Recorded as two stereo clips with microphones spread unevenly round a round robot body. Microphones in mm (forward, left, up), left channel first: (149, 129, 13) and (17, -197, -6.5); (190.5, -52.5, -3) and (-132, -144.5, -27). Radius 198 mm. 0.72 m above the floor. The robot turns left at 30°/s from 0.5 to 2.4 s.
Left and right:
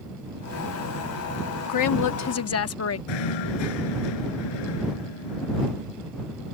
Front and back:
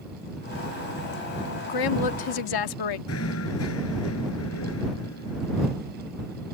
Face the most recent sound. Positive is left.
turn(degrees=75)